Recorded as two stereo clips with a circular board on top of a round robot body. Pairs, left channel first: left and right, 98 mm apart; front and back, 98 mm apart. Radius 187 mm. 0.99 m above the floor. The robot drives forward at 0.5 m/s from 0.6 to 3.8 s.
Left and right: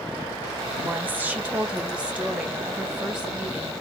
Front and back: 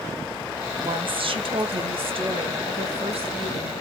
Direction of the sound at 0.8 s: 160° right.